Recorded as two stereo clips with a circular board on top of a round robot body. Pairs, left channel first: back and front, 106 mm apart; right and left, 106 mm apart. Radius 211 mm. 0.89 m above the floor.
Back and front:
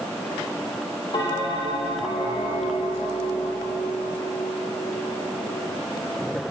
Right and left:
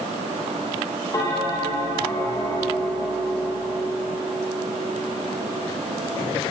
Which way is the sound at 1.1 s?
145° right.